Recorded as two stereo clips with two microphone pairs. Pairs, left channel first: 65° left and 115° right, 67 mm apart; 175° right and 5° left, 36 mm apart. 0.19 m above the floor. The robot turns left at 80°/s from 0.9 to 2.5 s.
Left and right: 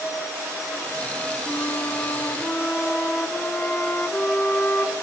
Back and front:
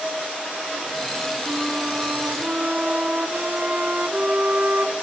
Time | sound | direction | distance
1.5 | a flute | 90° left | 1.1 m